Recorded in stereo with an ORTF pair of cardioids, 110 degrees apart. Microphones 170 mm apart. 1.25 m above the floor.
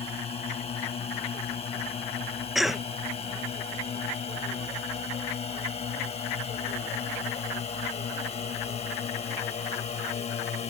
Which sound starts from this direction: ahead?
A cough, at 2.5 s.